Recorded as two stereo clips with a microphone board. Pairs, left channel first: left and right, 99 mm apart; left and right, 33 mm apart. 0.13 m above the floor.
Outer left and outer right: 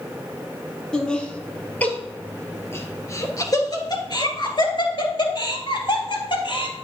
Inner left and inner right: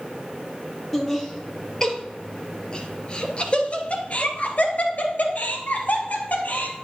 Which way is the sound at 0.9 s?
5° left (ahead or behind).